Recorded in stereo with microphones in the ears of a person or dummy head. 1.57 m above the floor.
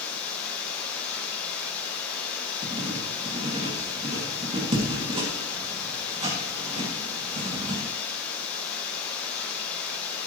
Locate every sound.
0.0 s running water: 10° left (ahead or behind), 6.5 m
2.6 s writing: 35° right (ahead or behind), 3 m